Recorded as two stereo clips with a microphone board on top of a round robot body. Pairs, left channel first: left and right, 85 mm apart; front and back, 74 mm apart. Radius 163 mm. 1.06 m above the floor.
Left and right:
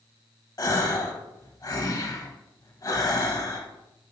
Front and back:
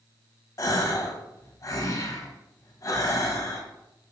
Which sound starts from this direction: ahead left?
A gasp, at 0.6 s.